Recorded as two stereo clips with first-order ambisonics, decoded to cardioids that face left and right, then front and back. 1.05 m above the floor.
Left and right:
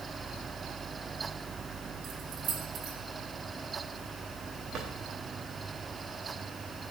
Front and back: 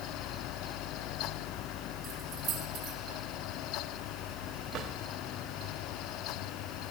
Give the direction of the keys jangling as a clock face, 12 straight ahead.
4 o'clock.